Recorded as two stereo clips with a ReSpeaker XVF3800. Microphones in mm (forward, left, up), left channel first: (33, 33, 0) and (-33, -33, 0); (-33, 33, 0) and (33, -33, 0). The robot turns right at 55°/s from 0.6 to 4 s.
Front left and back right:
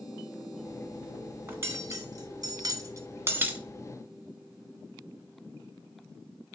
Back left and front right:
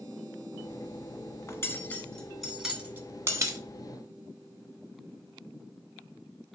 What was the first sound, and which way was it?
Cutlery clinking, 170° left.